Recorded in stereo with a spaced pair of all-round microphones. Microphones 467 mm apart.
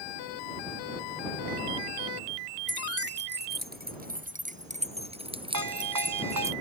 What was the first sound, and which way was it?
Keys jangling, 25° right (ahead or behind).